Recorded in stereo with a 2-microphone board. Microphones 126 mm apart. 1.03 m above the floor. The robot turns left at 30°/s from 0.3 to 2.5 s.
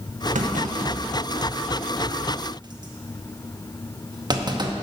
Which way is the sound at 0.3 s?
80° right.